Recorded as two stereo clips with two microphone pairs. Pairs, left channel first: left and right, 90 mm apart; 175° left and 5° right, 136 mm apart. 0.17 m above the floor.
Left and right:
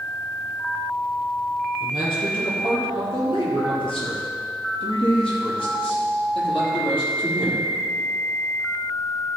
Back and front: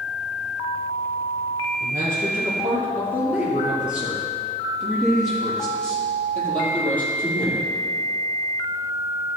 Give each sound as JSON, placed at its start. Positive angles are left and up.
{"t": 1.8, "sound": "a man speaking", "azimuth_deg": 60, "distance_m": 4.5}